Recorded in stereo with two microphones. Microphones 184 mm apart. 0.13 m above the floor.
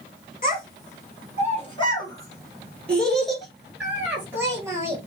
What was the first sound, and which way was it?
A child speaking, 45° left (ahead or behind).